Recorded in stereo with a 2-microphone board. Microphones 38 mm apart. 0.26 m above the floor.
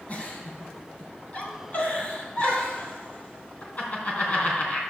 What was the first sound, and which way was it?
A giggle, 50° left (ahead or behind).